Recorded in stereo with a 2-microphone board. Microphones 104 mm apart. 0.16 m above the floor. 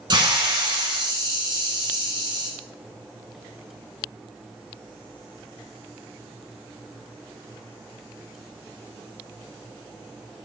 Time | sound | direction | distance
0.1 | a hiss | 45° right (ahead or behind) | 1.8 m